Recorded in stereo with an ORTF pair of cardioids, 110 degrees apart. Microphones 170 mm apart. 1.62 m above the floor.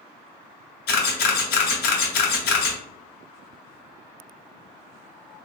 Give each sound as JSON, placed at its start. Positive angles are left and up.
{"t": 0.9, "sound": "a camera shutter", "azimuth_deg": 70, "distance_m": 1.1}